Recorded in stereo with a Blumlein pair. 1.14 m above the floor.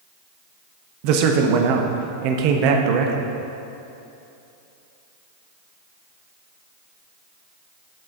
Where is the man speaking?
45° right, 0.6 m.